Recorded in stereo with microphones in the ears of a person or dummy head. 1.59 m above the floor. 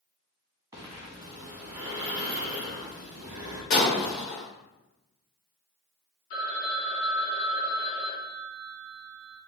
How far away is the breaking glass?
About 1.0 m.